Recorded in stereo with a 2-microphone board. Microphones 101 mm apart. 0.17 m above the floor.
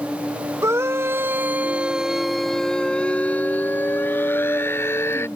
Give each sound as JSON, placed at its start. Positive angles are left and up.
{"t": 0.6, "sound": "a scream", "side_deg": -30}